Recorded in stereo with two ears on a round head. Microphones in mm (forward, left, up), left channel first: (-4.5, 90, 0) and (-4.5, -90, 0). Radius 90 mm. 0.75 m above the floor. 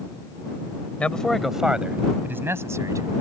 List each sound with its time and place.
1.0 s a man speaking: 5° left (ahead or behind); by 3.1 s 15° right (ahead or behind)